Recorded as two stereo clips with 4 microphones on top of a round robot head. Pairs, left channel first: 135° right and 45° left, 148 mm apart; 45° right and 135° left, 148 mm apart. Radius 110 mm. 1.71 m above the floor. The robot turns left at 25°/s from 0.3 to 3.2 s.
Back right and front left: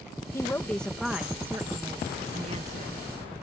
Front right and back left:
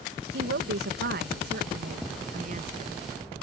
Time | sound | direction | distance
0.3 | a woman speaking | 150° left | ?